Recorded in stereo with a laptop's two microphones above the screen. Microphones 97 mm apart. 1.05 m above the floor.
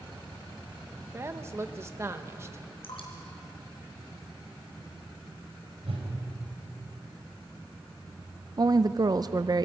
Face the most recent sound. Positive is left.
turn(degrees=-40)  # may be behind; listen again after turning